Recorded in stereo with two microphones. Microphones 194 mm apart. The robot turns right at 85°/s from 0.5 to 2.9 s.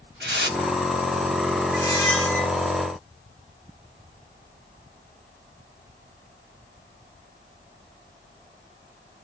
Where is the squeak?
45° left, 1.0 m; by 2.5 s 110° left, 1.0 m.